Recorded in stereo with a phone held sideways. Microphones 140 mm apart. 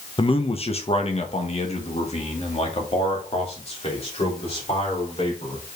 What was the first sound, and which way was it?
A man speaking, 40° left (ahead or behind).